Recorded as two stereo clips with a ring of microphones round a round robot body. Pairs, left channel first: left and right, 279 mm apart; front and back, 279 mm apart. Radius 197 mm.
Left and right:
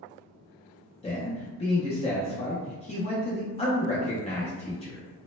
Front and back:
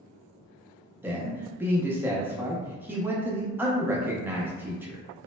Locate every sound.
1.0 s a man speaking: 110° left, 0.5 m